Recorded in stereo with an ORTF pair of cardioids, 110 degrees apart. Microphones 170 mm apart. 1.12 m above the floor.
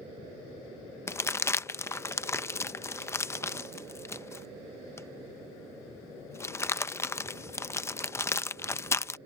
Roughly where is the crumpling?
Ahead.